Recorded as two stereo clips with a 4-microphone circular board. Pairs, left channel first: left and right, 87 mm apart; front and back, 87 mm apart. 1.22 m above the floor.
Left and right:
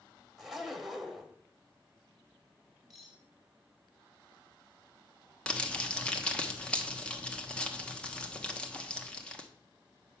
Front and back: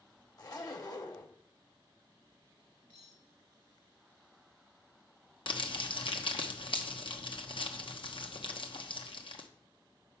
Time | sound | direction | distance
0.4 | a zipper | 5° right | 1.3 m
2.9 | cutlery clinking | 5° right | 3.5 m
5.5 | crumpling | 10° left | 1.1 m